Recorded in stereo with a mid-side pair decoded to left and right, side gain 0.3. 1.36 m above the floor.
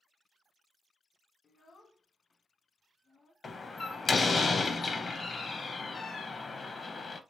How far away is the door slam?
About 0.8 m.